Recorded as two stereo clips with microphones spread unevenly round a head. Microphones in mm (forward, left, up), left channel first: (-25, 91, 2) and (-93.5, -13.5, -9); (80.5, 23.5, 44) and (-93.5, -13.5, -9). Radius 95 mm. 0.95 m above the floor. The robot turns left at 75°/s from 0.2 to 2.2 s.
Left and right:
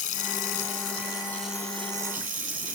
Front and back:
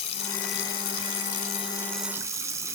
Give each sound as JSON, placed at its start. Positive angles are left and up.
{"t": 0.0, "sound": "running water", "azimuth_deg": 65, "distance_m": 2.5}